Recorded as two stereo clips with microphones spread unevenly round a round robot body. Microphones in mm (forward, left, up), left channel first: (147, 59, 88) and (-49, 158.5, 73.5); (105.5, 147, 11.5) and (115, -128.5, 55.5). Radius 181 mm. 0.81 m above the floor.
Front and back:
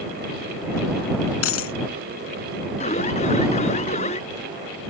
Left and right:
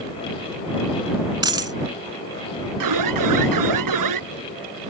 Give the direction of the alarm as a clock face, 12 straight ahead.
3 o'clock.